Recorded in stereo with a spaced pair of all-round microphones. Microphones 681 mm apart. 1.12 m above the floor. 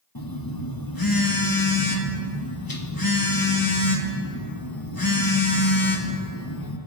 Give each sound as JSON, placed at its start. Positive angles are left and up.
{"t": 0.1, "sound": "a phone buzzing", "side_deg": 30, "distance_m": 1.3}